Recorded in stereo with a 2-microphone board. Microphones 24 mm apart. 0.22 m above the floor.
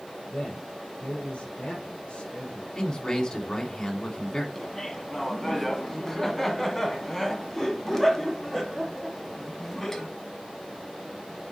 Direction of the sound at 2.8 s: 35° left (ahead or behind).